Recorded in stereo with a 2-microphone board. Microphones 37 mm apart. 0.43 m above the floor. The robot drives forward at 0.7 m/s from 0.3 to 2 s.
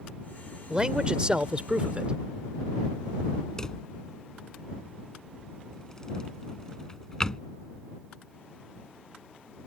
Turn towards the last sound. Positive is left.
turn(degrees=15)  # may be behind; listen again after turning